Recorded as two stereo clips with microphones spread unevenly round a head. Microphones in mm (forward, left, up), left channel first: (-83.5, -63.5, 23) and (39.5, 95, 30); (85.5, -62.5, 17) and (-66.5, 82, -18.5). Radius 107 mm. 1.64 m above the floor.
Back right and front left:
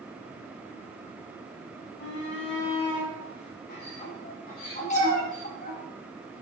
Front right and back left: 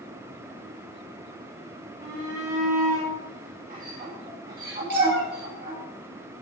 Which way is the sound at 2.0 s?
160° right.